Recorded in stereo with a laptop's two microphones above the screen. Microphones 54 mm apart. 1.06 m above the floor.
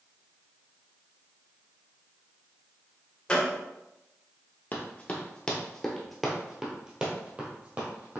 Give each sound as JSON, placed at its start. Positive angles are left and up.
{"t": 3.3, "sound": "a gunshot", "side_deg": 15, "distance_m": 1.6}
{"t": 4.7, "sound": "running footsteps", "side_deg": 30, "distance_m": 1.2}